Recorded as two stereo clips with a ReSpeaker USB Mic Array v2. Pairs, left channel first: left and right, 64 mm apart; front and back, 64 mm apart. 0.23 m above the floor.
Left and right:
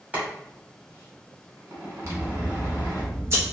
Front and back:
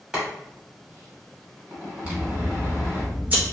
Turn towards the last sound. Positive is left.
turn(degrees=-120)